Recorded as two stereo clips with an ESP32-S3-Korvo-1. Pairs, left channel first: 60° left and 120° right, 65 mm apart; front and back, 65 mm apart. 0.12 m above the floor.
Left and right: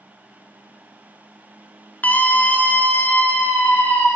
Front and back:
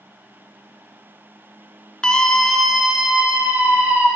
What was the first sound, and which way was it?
A scream, 60° left.